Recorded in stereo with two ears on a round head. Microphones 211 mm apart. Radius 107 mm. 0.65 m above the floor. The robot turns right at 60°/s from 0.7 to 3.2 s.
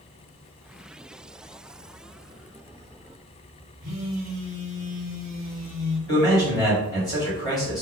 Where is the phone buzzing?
15° right (ahead or behind), 1.1 m.